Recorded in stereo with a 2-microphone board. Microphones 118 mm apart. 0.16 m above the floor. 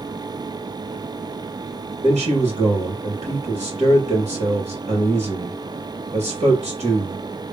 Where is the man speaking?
60° right (ahead or behind), 3 m.